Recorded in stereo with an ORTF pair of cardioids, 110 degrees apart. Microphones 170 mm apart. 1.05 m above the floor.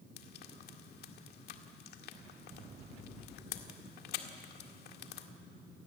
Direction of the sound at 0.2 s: 70° left.